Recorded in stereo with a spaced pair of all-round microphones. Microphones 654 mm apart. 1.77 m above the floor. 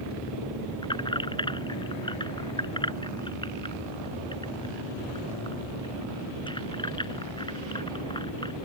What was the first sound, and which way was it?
Keys jangling, 5° left (ahead or behind).